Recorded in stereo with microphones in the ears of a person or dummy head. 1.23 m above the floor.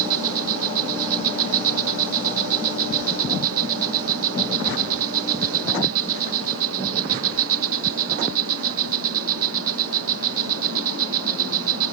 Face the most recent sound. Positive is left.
turn(degrees=-75)  # may be behind; listen again after turning